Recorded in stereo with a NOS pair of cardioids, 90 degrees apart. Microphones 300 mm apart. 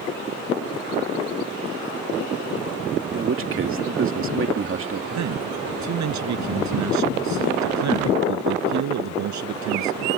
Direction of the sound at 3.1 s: 45° right.